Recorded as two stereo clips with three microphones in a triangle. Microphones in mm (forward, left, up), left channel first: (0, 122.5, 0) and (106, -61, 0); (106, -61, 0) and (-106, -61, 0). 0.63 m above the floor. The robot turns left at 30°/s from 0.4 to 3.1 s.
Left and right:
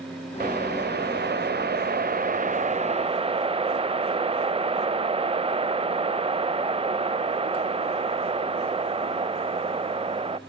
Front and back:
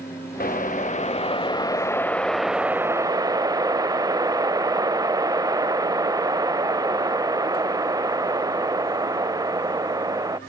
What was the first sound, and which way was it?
A whoosh, 30° right.